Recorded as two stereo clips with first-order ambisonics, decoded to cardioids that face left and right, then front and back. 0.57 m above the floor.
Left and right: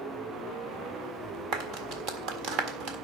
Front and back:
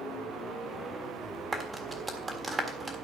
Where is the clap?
110° right, 1.6 m.